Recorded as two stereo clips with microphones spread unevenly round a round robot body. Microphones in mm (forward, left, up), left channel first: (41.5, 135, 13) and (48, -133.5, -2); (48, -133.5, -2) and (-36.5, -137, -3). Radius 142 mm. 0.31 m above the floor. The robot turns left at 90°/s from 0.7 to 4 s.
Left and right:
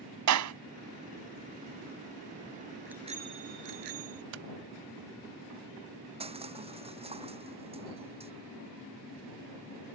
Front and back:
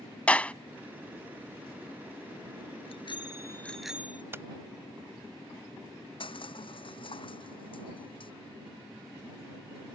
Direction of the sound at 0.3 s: 75° right.